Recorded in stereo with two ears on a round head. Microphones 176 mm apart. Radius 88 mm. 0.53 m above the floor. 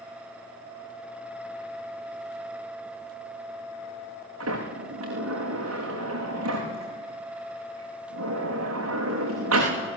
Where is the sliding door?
85° right, 8.5 m.